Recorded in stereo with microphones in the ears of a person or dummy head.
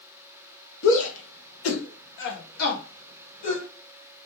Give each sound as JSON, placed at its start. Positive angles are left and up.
{"t": 0.8, "sound": "a shout", "side_deg": 70, "distance_m": 0.9}